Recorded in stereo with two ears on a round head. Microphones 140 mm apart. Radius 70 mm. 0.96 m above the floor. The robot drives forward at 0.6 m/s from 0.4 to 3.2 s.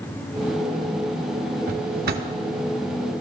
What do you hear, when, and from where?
1.7 s a drawer: 55° right (ahead or behind), 1.7 m; by 2.3 s 70° right (ahead or behind), 1.5 m